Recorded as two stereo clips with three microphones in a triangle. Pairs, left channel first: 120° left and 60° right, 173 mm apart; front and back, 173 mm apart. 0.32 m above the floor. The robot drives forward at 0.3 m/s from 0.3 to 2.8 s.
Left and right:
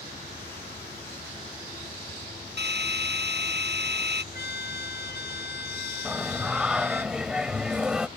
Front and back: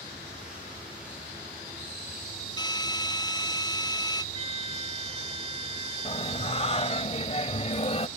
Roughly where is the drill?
Ahead right.